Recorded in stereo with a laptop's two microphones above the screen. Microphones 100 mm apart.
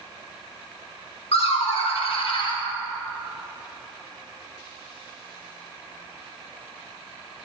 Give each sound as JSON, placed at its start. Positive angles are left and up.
{"t": 1.3, "sound": "laughter", "side_deg": 80, "distance_m": 1.1}